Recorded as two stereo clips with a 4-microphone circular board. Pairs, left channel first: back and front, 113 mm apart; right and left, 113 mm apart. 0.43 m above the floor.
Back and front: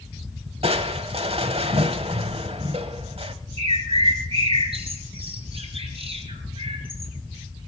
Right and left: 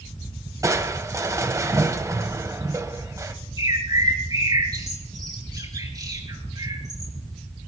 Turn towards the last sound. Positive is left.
turn(degrees=35)